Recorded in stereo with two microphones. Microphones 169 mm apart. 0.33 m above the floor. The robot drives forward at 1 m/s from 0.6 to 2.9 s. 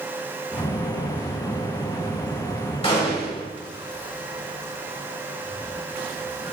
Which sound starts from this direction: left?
A gunshot, at 2.8 s.